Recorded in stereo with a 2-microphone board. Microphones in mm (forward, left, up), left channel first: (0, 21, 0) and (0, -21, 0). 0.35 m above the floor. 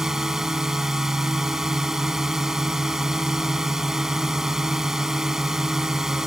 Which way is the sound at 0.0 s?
10° right (ahead or behind).